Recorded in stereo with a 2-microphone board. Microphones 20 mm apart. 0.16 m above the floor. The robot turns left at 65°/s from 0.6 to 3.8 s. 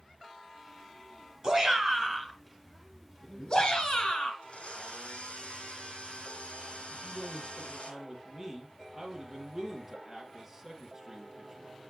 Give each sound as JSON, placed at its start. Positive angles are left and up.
{"t": 1.4, "sound": "a shout", "azimuth_deg": -115, "distance_m": 2.0}
{"t": 4.4, "sound": "a blender", "side_deg": 75, "distance_m": 1.4}
{"t": 6.9, "sound": "a man speaking", "side_deg": -15, "distance_m": 3.0}